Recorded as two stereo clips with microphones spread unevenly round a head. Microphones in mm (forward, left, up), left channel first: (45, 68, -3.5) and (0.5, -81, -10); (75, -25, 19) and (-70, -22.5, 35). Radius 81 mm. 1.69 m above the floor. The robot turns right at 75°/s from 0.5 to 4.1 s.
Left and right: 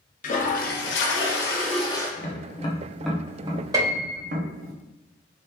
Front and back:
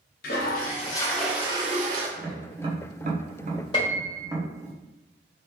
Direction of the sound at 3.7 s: 50° right.